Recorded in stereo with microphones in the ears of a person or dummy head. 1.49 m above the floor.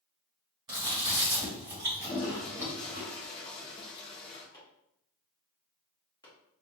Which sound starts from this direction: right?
Chewing, at 0.7 s.